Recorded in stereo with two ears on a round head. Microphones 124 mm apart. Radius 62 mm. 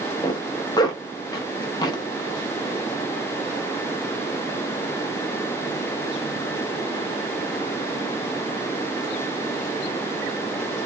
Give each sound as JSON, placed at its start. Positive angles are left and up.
{"t": 0.2, "sound": "a zipper", "side_deg": 30, "distance_m": 0.6}